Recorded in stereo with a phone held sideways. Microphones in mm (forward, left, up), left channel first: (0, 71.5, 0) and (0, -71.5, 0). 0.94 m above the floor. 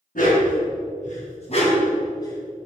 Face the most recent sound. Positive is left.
turn(degrees=15)  # may be behind; listen again after turning